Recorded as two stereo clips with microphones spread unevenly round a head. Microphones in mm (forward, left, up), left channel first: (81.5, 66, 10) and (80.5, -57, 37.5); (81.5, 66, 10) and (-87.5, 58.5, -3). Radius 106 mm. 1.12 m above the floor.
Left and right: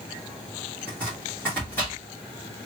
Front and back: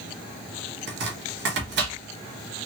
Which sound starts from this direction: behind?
Chopping, at 0.9 s.